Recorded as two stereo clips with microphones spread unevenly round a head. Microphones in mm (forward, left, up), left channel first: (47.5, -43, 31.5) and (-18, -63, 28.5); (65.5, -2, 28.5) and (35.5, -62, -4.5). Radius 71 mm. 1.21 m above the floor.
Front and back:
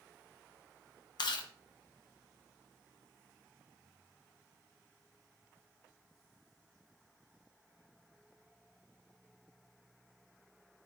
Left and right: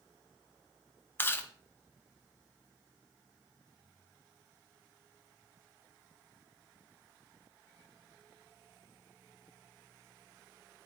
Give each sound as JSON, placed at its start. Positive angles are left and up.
{"t": 1.2, "sound": "chewing", "azimuth_deg": 20, "distance_m": 1.2}